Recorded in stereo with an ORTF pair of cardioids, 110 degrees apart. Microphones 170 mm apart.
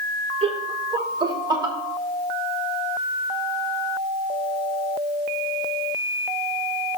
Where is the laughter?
35° right, 1.3 m; by 1.8 s 25° right, 1.9 m.